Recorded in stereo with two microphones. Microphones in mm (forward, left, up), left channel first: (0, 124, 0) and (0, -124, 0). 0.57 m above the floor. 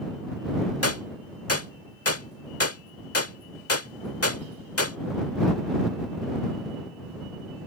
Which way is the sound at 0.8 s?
70° left (ahead or behind).